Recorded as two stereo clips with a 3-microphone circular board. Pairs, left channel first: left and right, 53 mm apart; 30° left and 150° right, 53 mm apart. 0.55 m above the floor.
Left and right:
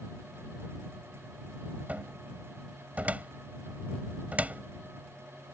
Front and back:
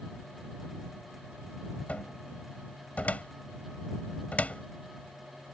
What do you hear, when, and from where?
1.9 s a cupboard door: 30° right